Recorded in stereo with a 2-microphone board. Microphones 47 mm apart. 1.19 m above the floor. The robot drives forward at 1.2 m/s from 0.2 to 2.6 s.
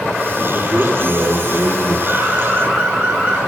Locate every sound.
0.5 s a man speaking: 50° right (ahead or behind), 5.5 m; by 2.0 s 65° right (ahead or behind), 5 m
2.1 s an alarm: 30° right (ahead or behind), 8 m; by 3.4 s 35° right (ahead or behind), 7.5 m